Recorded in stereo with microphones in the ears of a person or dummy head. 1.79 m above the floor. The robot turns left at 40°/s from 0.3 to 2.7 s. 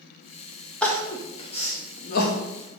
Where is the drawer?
No drawer in this recording.